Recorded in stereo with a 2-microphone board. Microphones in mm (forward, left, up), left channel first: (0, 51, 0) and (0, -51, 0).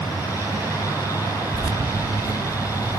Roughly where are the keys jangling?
Right.